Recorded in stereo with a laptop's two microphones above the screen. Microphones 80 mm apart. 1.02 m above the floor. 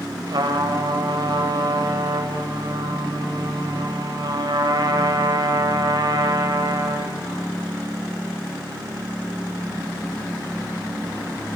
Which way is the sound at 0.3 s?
75° right (ahead or behind).